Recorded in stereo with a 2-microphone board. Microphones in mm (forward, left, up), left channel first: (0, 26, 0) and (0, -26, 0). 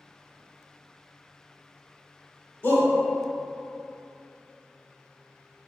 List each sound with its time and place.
2.6 s a shout: 50° left (ahead or behind), 1.2 m